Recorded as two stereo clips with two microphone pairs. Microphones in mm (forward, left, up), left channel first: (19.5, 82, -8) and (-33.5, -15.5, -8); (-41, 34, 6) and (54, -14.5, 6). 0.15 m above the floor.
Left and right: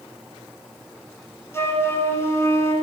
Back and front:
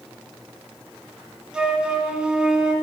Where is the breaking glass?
No breaking glass in this recording.